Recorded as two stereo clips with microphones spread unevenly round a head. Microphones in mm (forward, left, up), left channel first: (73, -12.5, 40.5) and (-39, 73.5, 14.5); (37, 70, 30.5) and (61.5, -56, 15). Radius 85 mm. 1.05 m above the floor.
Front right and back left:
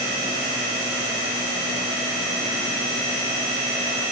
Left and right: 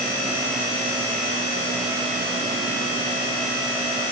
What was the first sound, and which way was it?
Only background noise.